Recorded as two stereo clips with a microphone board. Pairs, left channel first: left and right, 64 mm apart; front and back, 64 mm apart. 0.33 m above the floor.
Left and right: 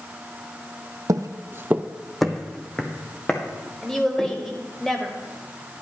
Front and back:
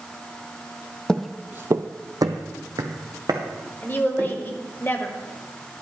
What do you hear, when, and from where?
1.1 s footsteps: 75° right, 0.6 m; by 4.8 s 155° left, 3 m
3.8 s a woman speaking: 15° left, 1.2 m